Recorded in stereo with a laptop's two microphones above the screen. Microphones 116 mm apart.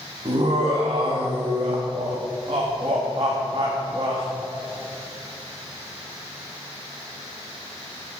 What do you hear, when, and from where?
0.2 s laughter: 45° right (ahead or behind), 1.1 m